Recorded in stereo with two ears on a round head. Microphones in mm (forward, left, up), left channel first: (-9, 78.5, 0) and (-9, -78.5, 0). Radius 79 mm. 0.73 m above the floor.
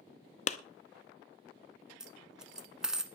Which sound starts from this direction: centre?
A dropped coin, at 2.0 s.